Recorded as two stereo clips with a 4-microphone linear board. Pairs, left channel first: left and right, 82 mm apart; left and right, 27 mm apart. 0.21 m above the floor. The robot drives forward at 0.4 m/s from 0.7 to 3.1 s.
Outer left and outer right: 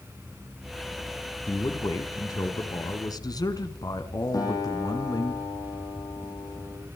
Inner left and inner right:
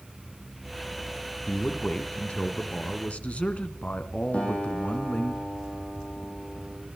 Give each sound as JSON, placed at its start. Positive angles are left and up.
{"t": 1.5, "sound": "a man speaking", "side_deg": 45, "distance_m": 3.0}
{"t": 4.3, "sound": "a guitar", "side_deg": 50, "distance_m": 8.5}